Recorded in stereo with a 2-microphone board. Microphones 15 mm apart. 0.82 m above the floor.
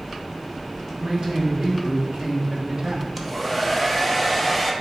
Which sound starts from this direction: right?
A man speaking, at 1.0 s.